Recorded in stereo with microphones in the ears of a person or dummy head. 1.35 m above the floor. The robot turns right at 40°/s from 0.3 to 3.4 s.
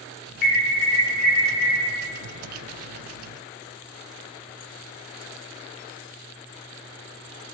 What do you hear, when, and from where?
0.4 s an alarm: 130° left, 0.8 m; by 1.8 s 175° right, 0.8 m